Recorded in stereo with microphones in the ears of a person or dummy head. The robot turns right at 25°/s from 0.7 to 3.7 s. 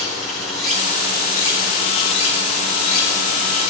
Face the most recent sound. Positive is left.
turn(degrees=85)